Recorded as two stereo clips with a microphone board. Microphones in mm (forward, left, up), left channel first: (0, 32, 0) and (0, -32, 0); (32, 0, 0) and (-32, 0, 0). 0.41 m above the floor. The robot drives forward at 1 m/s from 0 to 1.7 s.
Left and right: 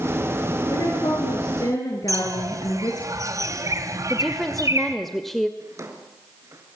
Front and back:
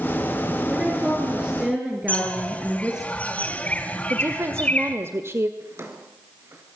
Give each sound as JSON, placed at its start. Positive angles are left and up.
{"t": 0.7, "sound": "a woman speaking", "azimuth_deg": 90, "distance_m": 5.5}
{"t": 2.1, "sound": "a bird", "azimuth_deg": -65, "distance_m": 2.5}
{"t": 4.1, "sound": "a woman speaking", "azimuth_deg": 175, "distance_m": 1.8}
{"t": 5.6, "sound": "a drawer", "azimuth_deg": -130, "distance_m": 3.5}